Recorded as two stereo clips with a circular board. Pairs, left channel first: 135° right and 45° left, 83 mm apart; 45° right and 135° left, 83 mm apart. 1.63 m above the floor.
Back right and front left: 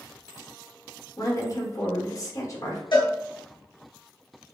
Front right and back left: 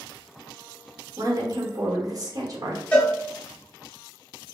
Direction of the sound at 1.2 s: Straight behind.